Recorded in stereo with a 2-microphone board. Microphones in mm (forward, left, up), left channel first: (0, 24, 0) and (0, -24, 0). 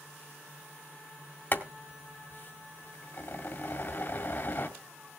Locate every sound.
1.5 s boiling: 45° left (ahead or behind), 1.8 m